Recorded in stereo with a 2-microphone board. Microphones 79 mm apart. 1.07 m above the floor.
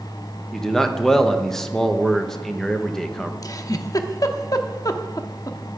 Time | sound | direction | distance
0.5 | a man speaking | 5° left (ahead or behind) | 1.0 m
3.4 | a giggle | 50° left (ahead or behind) | 0.8 m